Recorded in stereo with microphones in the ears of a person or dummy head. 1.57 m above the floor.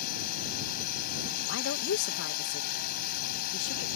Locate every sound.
0.0 s a drone: 50° left (ahead or behind)
1.5 s a woman speaking: 70° left (ahead or behind)